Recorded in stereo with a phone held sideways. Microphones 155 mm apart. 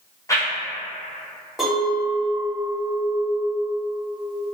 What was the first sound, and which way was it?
A whoosh, 20° left (ahead or behind).